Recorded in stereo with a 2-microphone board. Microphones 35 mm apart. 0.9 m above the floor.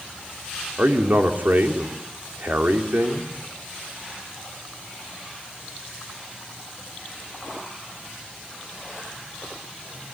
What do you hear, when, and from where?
0.8 s a man speaking: 60° right (ahead or behind), 3 m